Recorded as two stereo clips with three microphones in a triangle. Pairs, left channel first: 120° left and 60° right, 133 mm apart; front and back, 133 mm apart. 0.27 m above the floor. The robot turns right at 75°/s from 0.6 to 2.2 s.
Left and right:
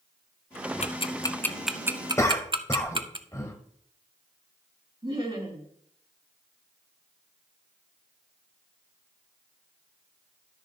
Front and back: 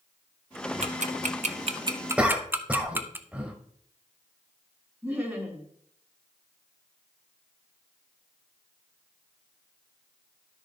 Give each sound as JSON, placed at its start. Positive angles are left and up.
{"t": 0.8, "sound": "ticking", "azimuth_deg": 150, "distance_m": 0.6}
{"t": 2.2, "sound": "a cough", "azimuth_deg": 115, "distance_m": 1.0}
{"t": 5.0, "sound": "laughter", "azimuth_deg": -100, "distance_m": 3.0}